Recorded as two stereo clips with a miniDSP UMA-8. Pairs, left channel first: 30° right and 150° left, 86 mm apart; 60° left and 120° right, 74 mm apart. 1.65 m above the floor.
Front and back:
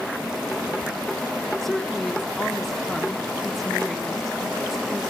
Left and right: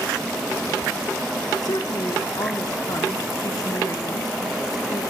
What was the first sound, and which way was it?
A woman speaking, 55° left.